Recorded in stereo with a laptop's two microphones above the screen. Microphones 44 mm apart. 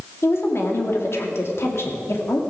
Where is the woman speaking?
65° left (ahead or behind), 2 m.